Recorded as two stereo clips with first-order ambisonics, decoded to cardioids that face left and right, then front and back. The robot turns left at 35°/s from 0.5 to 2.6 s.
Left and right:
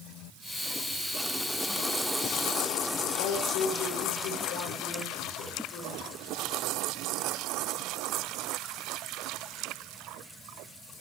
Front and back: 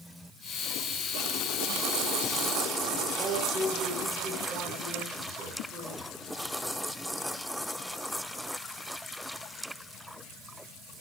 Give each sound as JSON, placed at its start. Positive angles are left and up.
{"t": 3.2, "sound": "a man speaking", "azimuth_deg": 115, "distance_m": 4.5}